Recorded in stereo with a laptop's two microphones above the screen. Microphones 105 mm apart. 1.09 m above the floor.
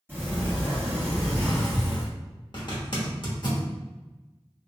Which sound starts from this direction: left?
A zipper, at 2.5 s.